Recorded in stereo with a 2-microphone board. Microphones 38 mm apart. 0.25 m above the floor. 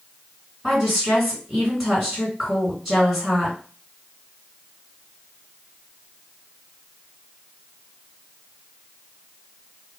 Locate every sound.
0.6 s a woman speaking: 5° right (ahead or behind), 2 m